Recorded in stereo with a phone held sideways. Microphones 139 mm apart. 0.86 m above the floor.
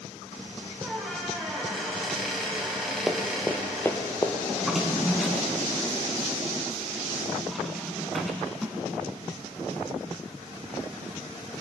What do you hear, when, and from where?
0.8 s a squeak: centre (ahead or behind), 3 m
3.1 s running footsteps: 5° right (ahead or behind), 1.4 m; by 4.3 s 30° left (ahead or behind), 1.4 m
4.5 s a drawer: centre (ahead or behind), 1.8 m